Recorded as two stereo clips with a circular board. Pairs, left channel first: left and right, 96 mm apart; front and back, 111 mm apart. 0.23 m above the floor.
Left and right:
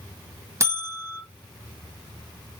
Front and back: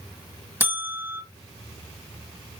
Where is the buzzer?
120° right, 1.2 m.